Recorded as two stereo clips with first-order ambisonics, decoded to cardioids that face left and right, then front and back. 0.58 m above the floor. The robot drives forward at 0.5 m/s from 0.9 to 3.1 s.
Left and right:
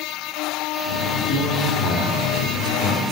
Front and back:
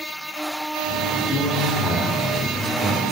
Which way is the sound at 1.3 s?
115° left.